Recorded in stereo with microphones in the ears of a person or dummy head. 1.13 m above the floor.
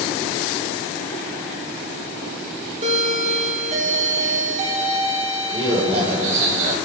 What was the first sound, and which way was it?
A doorbell, 40° right (ahead or behind).